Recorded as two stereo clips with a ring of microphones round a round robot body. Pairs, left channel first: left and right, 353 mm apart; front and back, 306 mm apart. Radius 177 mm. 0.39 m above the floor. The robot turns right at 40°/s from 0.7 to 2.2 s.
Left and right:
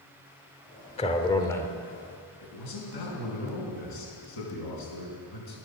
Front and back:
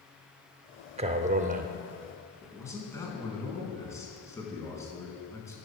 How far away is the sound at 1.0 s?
About 0.8 m.